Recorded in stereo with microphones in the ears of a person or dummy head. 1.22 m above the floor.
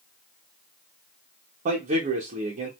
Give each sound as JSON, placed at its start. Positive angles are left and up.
{"t": 1.6, "sound": "a man speaking", "side_deg": -45, "distance_m": 0.9}